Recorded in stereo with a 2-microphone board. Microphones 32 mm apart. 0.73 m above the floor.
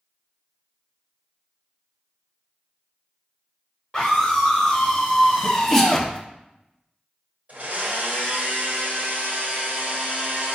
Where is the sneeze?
10° left (ahead or behind), 0.9 m.